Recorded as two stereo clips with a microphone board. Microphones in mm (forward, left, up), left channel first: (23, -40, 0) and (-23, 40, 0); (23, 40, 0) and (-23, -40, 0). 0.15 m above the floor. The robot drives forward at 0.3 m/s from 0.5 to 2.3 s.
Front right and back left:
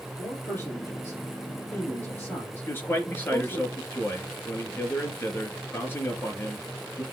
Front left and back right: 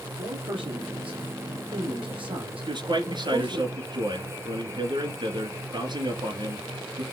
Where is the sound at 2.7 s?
120° right, 2.5 m.